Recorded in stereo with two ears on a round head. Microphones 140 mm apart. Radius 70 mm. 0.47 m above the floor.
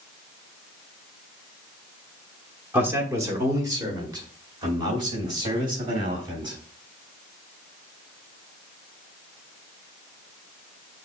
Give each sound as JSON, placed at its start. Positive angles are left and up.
{"t": 2.7, "sound": "a man speaking", "side_deg": -15, "distance_m": 1.1}